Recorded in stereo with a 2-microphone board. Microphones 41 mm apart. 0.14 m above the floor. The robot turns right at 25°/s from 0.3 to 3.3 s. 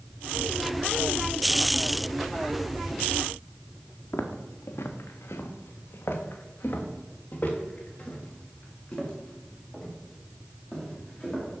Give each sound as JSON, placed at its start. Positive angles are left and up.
{"t": 4.1, "sound": "footsteps", "side_deg": 65, "distance_m": 1.5}